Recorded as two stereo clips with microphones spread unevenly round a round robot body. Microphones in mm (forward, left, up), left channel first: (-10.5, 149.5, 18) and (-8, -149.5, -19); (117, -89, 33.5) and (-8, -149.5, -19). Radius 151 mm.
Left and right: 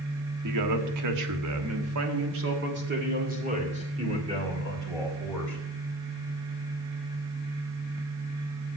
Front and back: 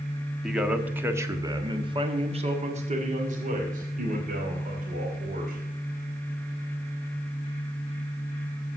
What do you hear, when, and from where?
0.4 s a man speaking: 75° right, 1.6 m; by 5.6 s 170° right, 3 m